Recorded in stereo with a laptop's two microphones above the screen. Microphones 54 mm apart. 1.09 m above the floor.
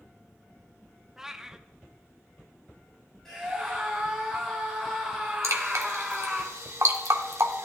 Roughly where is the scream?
Centre.